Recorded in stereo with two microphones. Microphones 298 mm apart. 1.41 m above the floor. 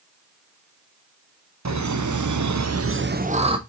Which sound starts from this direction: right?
Laughter, at 1.6 s.